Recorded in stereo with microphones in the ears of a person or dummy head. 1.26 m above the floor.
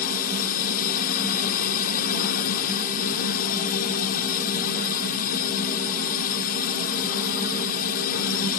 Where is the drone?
50° left (ahead or behind).